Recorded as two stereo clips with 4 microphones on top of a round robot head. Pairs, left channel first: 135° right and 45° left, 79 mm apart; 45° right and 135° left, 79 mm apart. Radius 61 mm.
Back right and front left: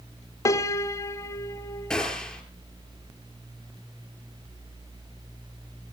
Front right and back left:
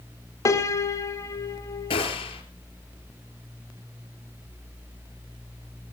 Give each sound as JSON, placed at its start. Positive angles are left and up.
{"t": 0.5, "sound": "a piano", "azimuth_deg": -90, "distance_m": 1.6}
{"t": 1.9, "sound": "a gunshot", "azimuth_deg": -55, "distance_m": 4.0}